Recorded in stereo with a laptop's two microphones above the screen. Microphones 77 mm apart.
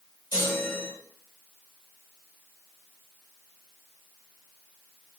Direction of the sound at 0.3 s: 55° left (ahead or behind).